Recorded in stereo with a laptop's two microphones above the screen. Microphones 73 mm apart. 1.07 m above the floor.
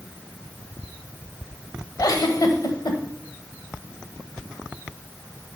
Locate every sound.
2.0 s a giggle: 55° left (ahead or behind), 1.3 m